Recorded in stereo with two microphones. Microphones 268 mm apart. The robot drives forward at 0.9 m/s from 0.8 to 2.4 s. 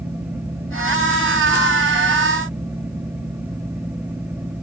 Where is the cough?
No cough in this recording.